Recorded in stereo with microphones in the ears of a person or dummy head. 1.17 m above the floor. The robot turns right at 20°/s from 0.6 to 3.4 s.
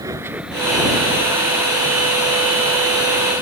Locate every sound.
0.0 s a vehicle: 20° right (ahead or behind); by 3.4 s 90° left